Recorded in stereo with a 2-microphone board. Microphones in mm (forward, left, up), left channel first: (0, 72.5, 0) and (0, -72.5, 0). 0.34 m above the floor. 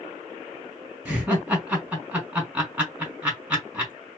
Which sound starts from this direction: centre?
Laughter, at 1.1 s.